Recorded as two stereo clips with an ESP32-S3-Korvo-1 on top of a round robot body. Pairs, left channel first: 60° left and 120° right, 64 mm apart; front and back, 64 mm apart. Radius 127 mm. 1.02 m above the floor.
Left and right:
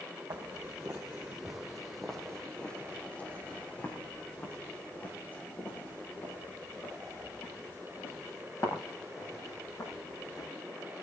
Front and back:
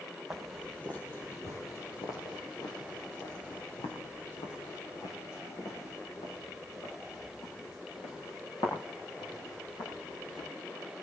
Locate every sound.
0.3 s footsteps: 90° right, 2 m; by 10.5 s 10° left, 12.5 m